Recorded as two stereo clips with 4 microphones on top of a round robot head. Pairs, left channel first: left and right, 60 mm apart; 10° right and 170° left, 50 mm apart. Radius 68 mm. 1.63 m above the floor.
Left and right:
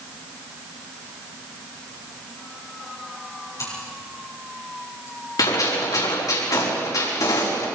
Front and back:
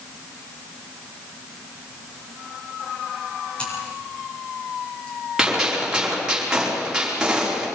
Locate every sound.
3.6 s scissors: 55° left, 8.5 m
5.4 s a gunshot: 95° left, 5.5 m